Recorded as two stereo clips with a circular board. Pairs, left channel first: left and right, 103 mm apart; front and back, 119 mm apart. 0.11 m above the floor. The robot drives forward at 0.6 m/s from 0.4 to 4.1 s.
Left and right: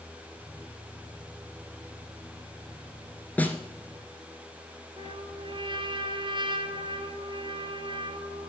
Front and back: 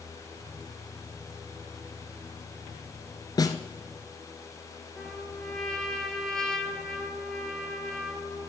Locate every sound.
3.4 s a snare drum: 25° left, 1.2 m; by 3.6 s 30° left, 1.2 m
5.0 s a trumpet: 85° right, 1.3 m